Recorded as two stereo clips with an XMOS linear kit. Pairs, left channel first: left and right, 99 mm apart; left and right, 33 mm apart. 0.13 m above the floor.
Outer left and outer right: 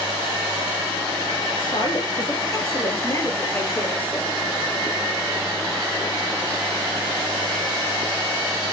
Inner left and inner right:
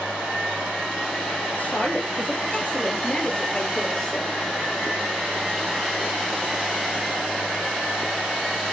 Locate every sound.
1.6 s a woman speaking: 50° left (ahead or behind), 3 m; by 4.3 s 10° left (ahead or behind), 3 m